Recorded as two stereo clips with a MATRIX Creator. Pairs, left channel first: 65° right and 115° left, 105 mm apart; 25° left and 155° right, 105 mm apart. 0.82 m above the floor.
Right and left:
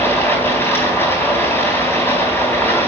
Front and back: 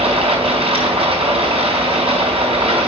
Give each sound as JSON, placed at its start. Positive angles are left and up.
{"t": 0.0, "sound": "running water", "azimuth_deg": -135, "distance_m": 4.0}